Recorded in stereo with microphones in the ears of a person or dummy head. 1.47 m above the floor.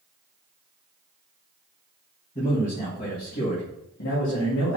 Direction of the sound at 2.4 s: 30° left (ahead or behind).